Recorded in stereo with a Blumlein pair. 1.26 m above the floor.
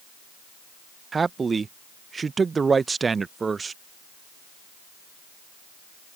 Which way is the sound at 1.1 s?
15° right.